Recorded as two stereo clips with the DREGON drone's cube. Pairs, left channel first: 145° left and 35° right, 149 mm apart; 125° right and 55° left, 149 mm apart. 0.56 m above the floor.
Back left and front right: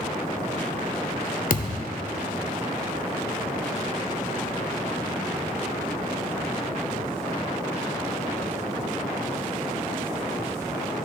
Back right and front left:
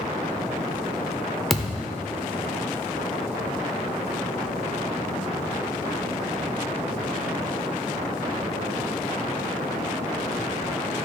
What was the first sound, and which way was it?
A thud, 145° left.